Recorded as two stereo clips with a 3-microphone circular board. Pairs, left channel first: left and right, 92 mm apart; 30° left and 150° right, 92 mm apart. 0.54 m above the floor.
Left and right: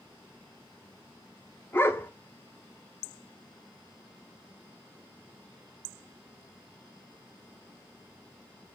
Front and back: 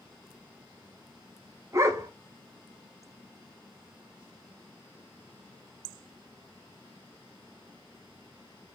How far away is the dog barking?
About 0.7 m.